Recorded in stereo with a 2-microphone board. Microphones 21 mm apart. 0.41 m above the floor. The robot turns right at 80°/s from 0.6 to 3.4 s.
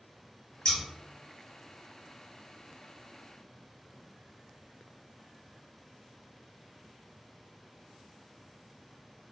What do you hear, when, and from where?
0.7 s scissors: 50° left (ahead or behind), 0.8 m; by 0.8 s 60° left (ahead or behind), 0.8 m